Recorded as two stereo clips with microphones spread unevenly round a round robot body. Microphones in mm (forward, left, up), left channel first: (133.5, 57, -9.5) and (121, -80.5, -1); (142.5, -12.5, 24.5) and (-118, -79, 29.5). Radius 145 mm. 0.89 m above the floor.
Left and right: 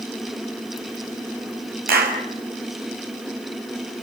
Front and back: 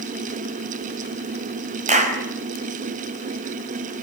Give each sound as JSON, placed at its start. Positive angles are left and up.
{"t": 1.9, "sound": "a clap", "azimuth_deg": -100, "distance_m": 5.0}